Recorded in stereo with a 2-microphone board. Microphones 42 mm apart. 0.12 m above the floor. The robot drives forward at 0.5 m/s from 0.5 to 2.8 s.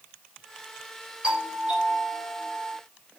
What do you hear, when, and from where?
1.2 s a doorbell: 25° right (ahead or behind), 5 m